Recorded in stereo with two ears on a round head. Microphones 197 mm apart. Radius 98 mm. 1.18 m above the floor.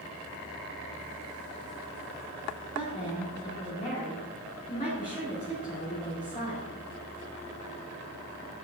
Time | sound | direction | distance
2.8 | a woman speaking | 35° left (ahead or behind) | 2.5 m